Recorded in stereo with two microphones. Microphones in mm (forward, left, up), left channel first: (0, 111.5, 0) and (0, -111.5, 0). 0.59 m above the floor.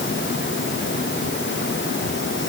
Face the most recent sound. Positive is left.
No sound to turn to.